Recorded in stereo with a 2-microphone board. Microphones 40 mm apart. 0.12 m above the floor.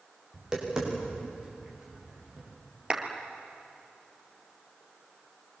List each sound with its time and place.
0.3 s tapping: 15° right (ahead or behind), 8.5 m
2.9 s a clap: 25° right (ahead or behind), 2.5 m